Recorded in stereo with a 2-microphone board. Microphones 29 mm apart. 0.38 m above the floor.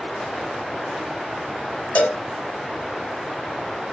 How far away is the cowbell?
About 0.9 m.